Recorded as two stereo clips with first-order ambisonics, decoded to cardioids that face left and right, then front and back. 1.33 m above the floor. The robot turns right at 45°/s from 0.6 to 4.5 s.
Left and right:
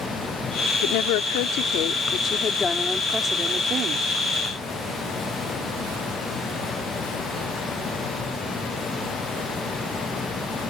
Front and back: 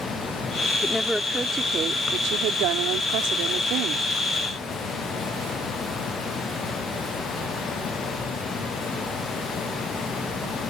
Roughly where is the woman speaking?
Left.